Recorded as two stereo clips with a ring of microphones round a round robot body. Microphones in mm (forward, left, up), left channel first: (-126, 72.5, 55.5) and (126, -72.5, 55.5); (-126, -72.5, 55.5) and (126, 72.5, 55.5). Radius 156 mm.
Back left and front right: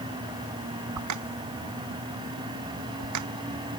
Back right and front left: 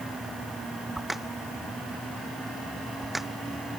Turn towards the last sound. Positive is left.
turn(degrees=-60)